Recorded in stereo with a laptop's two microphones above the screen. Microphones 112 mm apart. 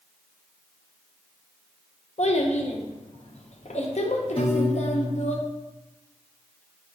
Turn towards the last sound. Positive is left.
turn(degrees=50)  # may be behind; listen again after turning